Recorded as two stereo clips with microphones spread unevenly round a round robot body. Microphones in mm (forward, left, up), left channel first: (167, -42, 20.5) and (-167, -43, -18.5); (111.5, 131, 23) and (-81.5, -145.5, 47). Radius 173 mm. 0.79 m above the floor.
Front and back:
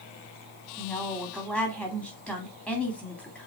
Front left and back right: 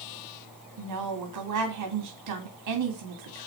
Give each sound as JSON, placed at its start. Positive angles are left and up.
{"t": 0.8, "sound": "a woman speaking", "azimuth_deg": -95, "distance_m": 2.0}